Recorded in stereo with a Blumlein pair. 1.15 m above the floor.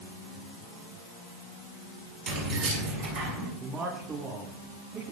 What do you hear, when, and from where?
2.3 s keys jangling: 40° right, 5.5 m; by 3.5 s 50° right, 5.5 m
3.6 s a man speaking: 20° right, 7 m